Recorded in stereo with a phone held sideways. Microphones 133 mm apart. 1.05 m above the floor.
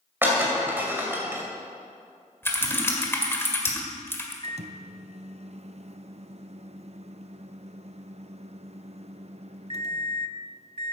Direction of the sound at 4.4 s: 55° right (ahead or behind).